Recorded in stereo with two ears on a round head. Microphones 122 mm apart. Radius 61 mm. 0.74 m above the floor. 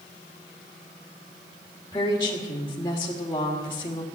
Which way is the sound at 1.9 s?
20° left (ahead or behind).